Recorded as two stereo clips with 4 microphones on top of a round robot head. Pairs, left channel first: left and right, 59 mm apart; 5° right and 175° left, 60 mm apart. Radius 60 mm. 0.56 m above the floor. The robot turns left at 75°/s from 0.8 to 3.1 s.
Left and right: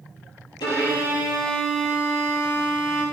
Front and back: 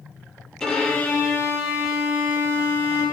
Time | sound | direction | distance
0.6 | a violin | 75° left | 5 m